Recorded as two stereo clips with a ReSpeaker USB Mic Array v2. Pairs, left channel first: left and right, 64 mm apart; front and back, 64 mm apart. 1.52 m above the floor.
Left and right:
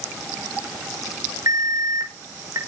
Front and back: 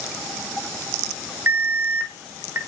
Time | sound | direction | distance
1.5 | an alarm | 125° right | 5.5 m